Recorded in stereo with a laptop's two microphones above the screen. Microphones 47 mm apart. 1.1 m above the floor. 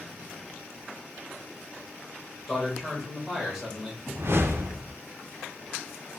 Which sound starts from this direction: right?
A whoosh, at 4.1 s.